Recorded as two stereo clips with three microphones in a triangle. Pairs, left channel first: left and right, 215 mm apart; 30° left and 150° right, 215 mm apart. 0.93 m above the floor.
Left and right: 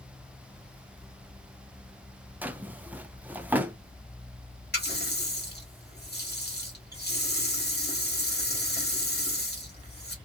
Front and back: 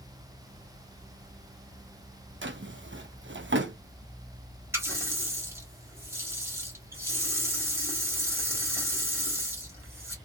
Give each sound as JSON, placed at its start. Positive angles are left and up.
{"t": 2.4, "sound": "a drawer", "azimuth_deg": -175, "distance_m": 0.5}
{"t": 4.7, "sound": "a running tap", "azimuth_deg": 130, "distance_m": 1.3}